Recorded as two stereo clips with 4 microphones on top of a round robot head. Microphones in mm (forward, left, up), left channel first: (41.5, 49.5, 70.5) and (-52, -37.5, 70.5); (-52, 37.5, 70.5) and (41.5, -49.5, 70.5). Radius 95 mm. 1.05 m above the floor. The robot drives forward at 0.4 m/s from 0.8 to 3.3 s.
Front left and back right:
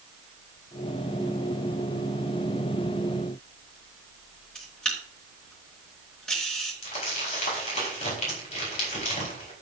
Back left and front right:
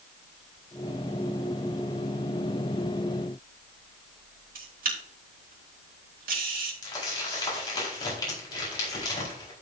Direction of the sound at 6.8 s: 75° left.